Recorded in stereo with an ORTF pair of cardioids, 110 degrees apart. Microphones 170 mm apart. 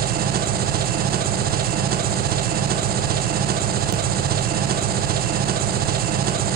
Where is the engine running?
65° right, 1.5 m.